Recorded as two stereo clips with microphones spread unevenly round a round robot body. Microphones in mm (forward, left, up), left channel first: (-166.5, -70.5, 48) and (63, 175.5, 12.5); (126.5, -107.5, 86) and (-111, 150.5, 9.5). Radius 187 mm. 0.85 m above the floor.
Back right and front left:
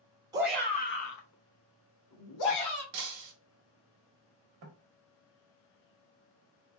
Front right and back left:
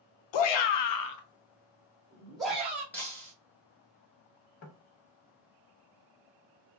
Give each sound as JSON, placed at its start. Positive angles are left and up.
{"t": 0.3, "sound": "a shout", "azimuth_deg": -30, "distance_m": 0.7}
{"t": 2.9, "sound": "breaking glass", "azimuth_deg": 30, "distance_m": 0.7}
{"t": 4.6, "sound": "knocking", "azimuth_deg": 5, "distance_m": 0.7}